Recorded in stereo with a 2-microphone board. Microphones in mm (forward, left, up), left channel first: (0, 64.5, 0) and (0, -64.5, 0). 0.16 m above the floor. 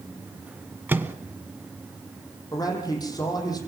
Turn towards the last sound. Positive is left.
turn(degrees=30)  # may be behind; listen again after turning